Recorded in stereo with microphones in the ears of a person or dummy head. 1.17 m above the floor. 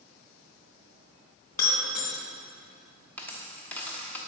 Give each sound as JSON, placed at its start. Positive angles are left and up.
{"t": 1.5, "sound": "breaking glass", "side_deg": 55, "distance_m": 2.5}
{"t": 3.2, "sound": "a dropped coin", "side_deg": 10, "distance_m": 0.9}